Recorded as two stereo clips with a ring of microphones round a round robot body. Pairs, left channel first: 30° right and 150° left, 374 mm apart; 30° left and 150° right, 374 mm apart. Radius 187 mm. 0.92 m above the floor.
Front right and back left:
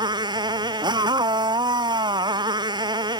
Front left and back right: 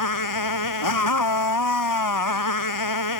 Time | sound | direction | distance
0.0 | a motorcycle | 70° left | ?